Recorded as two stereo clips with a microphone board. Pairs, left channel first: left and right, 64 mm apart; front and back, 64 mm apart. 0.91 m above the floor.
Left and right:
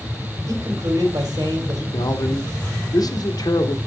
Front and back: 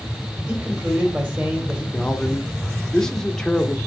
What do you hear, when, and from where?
0.5 s a man speaking: 115° right, 3 m
1.9 s a man speaking: 85° left, 1.3 m